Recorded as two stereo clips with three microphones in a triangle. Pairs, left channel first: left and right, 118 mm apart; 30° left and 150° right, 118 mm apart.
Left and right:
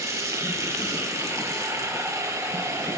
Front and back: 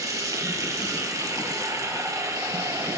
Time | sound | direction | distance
0.0 | running water | 125° right | 1.3 m